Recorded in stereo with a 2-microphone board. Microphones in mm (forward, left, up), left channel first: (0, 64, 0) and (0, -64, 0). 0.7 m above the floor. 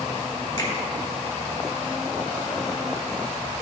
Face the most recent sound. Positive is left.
turn(degrees=30)  # may be behind; listen again after turning